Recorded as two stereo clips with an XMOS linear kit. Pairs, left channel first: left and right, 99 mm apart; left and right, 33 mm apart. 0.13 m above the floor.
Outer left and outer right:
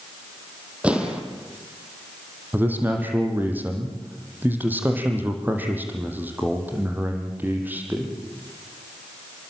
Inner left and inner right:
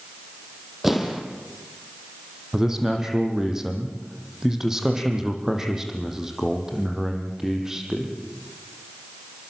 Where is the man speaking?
20° right (ahead or behind), 5.5 m.